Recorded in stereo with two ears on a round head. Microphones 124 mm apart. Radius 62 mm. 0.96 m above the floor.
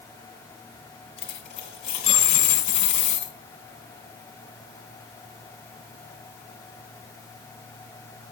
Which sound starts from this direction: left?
A dropped coin, at 1.2 s.